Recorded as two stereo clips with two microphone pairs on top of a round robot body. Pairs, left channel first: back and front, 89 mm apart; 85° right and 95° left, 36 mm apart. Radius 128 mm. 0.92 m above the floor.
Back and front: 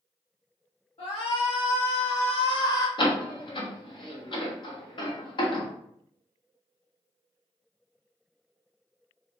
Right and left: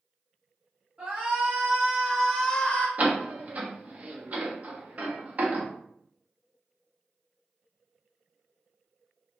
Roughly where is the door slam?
Behind left.